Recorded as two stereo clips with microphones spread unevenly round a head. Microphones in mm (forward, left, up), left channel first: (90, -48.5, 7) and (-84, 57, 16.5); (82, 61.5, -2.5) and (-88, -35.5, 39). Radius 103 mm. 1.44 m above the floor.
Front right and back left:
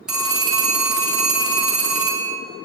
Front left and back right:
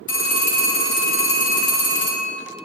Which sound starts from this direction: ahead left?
A phone ringing, at 0.1 s.